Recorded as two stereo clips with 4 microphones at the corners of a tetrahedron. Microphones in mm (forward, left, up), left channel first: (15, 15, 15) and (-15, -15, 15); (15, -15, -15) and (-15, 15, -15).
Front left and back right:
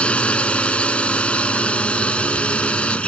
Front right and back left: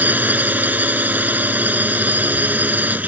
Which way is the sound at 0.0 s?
105° left.